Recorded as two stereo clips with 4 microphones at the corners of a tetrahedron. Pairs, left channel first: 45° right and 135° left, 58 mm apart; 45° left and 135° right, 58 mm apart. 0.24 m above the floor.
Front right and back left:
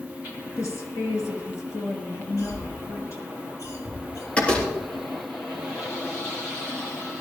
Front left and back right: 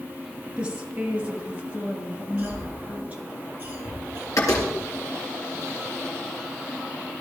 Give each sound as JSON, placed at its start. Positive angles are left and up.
{"t": 0.6, "sound": "a woman speaking", "azimuth_deg": -65, "distance_m": 3.5}
{"t": 2.4, "sound": "a cough", "azimuth_deg": -70, "distance_m": 6.5}
{"t": 4.4, "sound": "a door slam", "azimuth_deg": 25, "distance_m": 3.5}